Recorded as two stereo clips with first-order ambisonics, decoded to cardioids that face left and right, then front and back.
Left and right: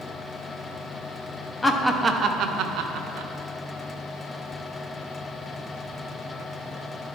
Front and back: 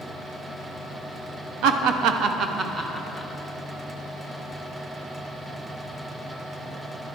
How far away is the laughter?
About 0.6 m.